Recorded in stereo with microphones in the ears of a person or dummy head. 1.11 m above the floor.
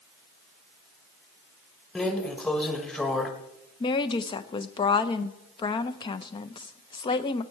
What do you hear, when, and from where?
1.9 s a drawer: 5° left (ahead or behind), 1.2 m
3.8 s a woman speaking: 30° left (ahead or behind), 0.7 m